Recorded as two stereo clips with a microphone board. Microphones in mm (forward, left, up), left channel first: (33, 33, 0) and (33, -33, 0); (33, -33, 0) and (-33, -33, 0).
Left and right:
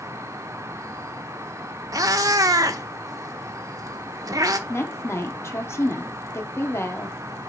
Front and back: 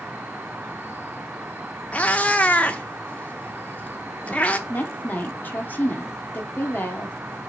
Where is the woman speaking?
55° left, 1.5 m.